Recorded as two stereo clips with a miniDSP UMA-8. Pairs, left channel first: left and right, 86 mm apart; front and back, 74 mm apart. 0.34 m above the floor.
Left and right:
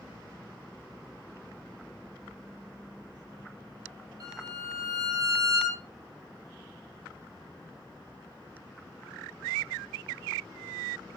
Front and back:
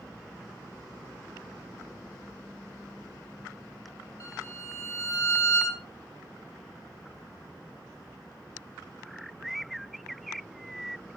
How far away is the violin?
About 9 m.